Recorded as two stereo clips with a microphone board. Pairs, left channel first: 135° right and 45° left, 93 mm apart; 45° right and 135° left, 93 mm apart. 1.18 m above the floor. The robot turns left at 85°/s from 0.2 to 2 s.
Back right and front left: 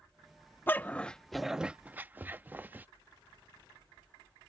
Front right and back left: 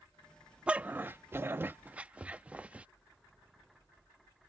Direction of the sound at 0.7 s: 165° right.